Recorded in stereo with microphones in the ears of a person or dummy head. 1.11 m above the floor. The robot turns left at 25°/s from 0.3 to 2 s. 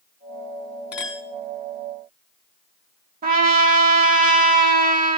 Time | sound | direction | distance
0.9 | a clink | 5° right (ahead or behind) | 2 m
3.2 | a trumpet | 45° right (ahead or behind) | 1.2 m